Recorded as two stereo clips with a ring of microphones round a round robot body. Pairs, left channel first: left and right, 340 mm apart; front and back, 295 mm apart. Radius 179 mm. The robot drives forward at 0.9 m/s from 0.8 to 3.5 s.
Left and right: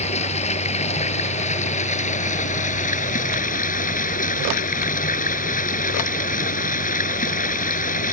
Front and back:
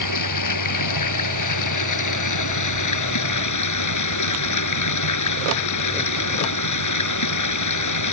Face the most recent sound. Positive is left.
turn(degrees=20)